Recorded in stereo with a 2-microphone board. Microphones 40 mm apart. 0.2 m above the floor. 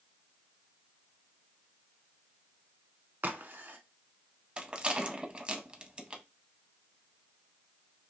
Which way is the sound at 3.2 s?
55° right (ahead or behind).